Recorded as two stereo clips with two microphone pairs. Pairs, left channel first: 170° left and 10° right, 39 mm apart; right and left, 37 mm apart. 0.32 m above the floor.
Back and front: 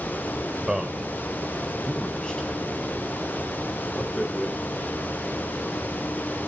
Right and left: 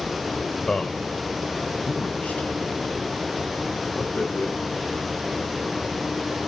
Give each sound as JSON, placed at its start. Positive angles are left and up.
{"t": 0.7, "sound": "a man speaking", "azimuth_deg": -50, "distance_m": 1.2}